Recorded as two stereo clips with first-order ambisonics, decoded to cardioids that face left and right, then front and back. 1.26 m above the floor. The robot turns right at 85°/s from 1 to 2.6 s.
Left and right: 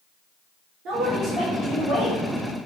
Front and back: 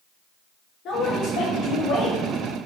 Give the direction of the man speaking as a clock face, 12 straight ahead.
2 o'clock.